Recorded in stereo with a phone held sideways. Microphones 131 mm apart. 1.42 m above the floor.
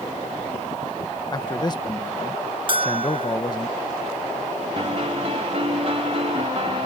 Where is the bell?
40° right (ahead or behind).